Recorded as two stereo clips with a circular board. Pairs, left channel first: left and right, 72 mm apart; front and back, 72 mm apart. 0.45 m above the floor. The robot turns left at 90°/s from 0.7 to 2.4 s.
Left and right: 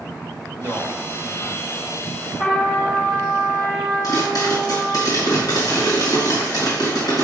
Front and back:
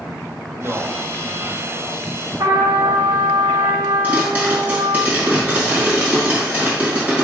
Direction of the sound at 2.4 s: 155° left.